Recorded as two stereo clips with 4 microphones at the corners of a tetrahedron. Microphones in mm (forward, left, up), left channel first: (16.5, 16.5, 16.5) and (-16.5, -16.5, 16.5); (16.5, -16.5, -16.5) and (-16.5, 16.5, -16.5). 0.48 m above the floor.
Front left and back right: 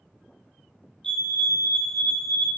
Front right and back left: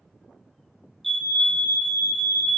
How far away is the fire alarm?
About 1.7 m.